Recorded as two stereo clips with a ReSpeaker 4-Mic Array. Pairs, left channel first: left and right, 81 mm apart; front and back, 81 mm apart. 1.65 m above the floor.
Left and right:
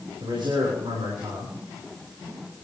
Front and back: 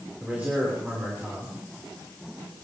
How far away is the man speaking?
About 6 m.